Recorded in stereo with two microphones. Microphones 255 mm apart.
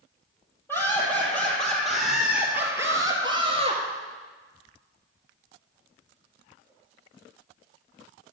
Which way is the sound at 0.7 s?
10° left (ahead or behind).